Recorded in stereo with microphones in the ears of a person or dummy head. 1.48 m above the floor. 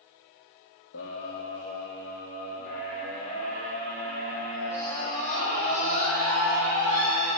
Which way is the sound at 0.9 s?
75° left (ahead or behind).